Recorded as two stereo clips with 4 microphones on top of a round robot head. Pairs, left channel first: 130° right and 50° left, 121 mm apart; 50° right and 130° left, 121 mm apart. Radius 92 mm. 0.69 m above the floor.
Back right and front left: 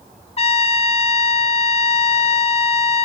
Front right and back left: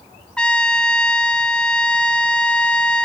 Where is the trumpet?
130° right, 0.9 m.